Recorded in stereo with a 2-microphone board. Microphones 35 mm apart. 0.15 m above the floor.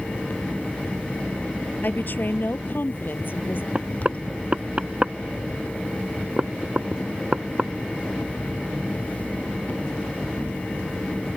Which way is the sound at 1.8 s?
65° left (ahead or behind).